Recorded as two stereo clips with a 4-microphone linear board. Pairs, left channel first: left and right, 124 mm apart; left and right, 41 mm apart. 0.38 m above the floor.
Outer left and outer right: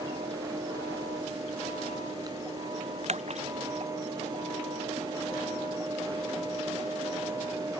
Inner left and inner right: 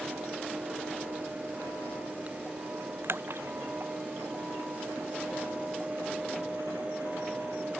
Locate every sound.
3.0 s a splash: 65° right (ahead or behind)